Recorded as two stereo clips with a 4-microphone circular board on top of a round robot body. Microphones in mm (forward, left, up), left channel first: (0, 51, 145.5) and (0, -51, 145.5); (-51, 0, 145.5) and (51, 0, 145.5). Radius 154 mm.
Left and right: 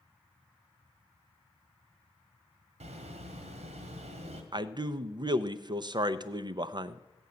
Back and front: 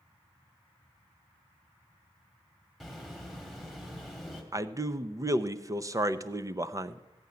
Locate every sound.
2.8 s a bird: 90° right, 1.5 m
4.5 s a man speaking: 55° right, 0.8 m